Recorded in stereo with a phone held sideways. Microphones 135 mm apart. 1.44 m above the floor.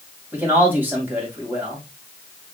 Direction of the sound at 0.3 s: 15° right (ahead or behind).